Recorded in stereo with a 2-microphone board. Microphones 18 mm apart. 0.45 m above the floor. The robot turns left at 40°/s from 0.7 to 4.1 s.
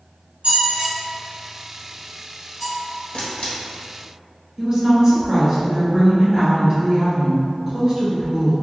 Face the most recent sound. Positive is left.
turn(degrees=-35)  # may be behind; listen again after turning